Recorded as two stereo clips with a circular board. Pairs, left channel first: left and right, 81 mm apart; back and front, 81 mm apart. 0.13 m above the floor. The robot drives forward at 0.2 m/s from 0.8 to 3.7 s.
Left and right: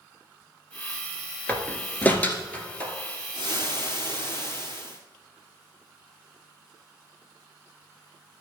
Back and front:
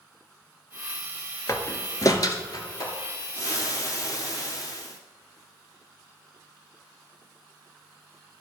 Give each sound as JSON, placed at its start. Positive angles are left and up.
{"t": 1.5, "sound": "a door slam", "azimuth_deg": 150, "distance_m": 1.2}
{"t": 3.3, "sound": "frying", "azimuth_deg": 145, "distance_m": 1.9}